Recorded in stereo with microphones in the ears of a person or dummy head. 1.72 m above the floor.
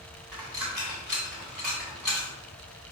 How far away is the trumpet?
No trumpet in this recording.